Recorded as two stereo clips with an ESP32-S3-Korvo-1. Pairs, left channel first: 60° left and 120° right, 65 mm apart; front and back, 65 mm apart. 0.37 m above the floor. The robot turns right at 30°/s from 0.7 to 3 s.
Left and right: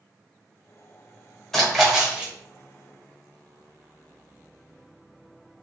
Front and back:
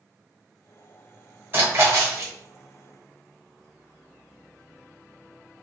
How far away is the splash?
About 1.2 m.